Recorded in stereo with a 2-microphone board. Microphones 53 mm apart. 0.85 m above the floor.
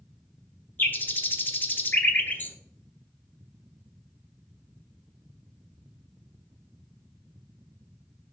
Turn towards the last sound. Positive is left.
turn(degrees=40)  # may be behind; listen again after turning